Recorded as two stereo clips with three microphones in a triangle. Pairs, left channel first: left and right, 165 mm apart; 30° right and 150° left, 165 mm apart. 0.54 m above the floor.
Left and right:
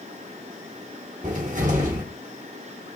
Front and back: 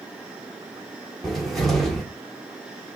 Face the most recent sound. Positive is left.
turn(degrees=-120)